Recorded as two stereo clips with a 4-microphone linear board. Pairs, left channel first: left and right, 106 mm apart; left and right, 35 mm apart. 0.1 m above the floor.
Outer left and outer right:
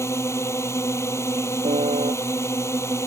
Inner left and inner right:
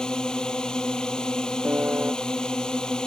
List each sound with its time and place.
0.0 s a drone: 25° left (ahead or behind)
1.6 s a piano: 80° right